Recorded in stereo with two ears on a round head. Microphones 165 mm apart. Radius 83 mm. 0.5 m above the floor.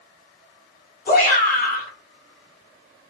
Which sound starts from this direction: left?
A shout, at 1.1 s.